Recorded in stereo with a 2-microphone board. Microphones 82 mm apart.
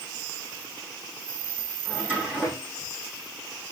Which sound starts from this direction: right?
A drawer, at 1.9 s.